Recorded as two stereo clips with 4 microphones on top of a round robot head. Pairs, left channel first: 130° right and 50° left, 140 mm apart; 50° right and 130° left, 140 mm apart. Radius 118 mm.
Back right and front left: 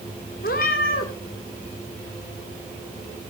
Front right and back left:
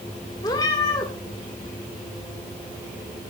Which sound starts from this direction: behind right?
A cat meowing, at 0.4 s.